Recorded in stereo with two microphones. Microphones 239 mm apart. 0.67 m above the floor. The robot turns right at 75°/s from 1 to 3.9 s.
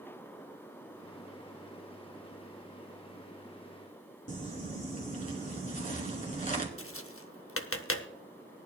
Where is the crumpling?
35° left (ahead or behind), 1.7 m.